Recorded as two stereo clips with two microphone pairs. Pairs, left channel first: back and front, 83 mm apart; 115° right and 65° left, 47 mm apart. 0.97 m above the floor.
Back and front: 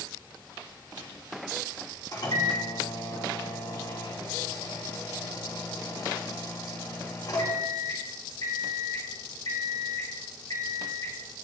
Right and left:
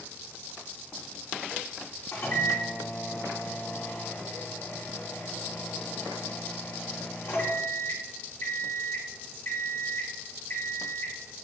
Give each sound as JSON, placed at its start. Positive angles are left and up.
{"t": 2.1, "sound": "a microwave", "azimuth_deg": -145, "distance_m": 2.5}